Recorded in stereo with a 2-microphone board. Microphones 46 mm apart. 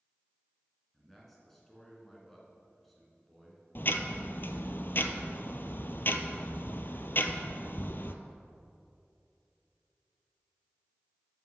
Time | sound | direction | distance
0.9 | a man speaking | 5° left (ahead or behind) | 2.5 m
3.8 | ticking | 50° left (ahead or behind) | 0.6 m